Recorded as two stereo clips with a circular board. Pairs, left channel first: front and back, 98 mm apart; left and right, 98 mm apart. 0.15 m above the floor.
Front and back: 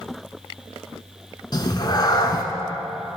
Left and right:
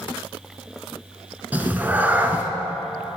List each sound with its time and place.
1.5 s a cat meowing: 25° right, 0.7 m